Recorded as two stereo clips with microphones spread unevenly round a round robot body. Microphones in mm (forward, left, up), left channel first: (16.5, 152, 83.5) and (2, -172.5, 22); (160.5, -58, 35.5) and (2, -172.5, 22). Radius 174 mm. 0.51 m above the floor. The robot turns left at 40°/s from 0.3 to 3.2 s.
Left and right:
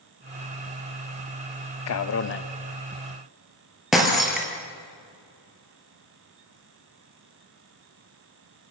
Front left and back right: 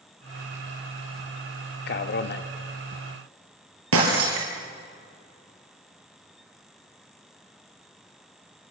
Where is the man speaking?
50° left, 1.1 m; by 2.5 s 25° left, 1.1 m.